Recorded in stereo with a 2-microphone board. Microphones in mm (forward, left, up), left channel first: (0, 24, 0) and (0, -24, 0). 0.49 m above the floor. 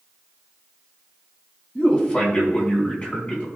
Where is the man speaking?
30° left (ahead or behind), 4 m.